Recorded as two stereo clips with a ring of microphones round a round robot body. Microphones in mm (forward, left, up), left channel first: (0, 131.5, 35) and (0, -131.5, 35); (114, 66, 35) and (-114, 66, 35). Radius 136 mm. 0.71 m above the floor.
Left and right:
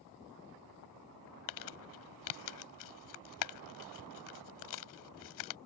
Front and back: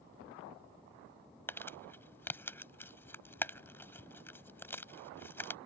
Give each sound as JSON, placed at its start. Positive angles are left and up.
{"t": 1.5, "sound": "crumpling", "azimuth_deg": 80}